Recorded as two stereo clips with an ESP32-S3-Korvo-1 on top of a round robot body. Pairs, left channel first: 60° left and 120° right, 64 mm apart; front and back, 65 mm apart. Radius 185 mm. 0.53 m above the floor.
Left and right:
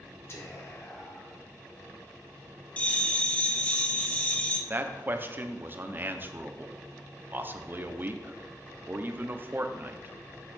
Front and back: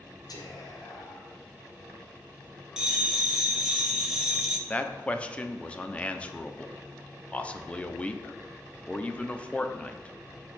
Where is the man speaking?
70° right, 1.0 m.